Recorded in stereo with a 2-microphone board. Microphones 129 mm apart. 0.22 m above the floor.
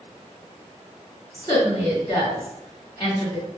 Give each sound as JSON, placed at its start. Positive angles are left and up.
{"t": 1.3, "sound": "a woman speaking", "side_deg": 25, "distance_m": 2.0}